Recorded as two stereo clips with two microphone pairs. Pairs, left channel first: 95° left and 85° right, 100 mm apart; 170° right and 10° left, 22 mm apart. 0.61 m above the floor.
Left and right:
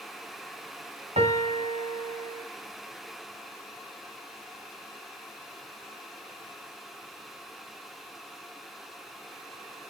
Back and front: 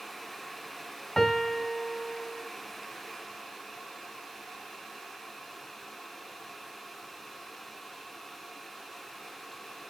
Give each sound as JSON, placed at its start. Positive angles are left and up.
{"t": 1.2, "sound": "a piano", "azimuth_deg": -90, "distance_m": 1.9}